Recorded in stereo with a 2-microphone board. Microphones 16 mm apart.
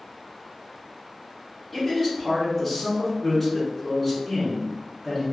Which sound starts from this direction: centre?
A man speaking, at 1.7 s.